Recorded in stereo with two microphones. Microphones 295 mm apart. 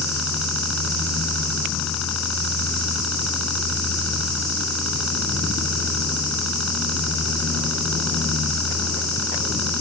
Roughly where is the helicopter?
Left.